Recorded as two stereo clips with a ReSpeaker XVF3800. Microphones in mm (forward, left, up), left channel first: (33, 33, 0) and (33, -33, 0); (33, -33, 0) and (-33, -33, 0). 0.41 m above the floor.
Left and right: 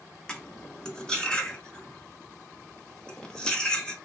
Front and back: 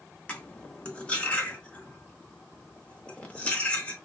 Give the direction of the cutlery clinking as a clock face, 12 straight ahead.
11 o'clock.